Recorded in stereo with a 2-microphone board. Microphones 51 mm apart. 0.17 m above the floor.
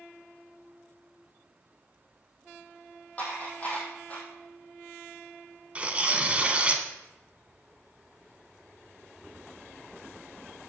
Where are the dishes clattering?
30° left (ahead or behind), 4 m.